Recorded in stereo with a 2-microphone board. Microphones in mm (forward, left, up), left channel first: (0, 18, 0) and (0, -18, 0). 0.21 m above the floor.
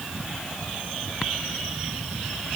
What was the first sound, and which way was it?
Only background noise.